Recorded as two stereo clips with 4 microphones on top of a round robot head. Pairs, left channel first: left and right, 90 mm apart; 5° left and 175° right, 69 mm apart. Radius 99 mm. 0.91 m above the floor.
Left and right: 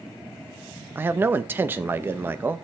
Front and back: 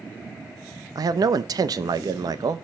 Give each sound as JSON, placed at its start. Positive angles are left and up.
{"t": 0.9, "sound": "a man speaking", "azimuth_deg": -155, "distance_m": 0.6}